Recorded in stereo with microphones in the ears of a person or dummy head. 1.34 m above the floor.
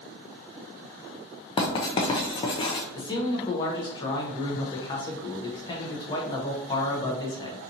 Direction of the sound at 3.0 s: 30° left (ahead or behind).